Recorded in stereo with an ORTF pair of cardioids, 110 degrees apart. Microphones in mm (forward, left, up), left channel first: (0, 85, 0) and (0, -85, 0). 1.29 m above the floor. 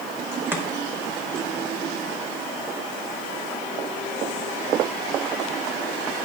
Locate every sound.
0.5 s chopping: 10° right, 1.0 m